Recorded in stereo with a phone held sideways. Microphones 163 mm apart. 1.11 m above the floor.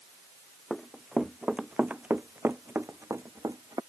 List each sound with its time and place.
0.7 s running footsteps: centre (ahead or behind); by 3.8 s 25° right (ahead or behind)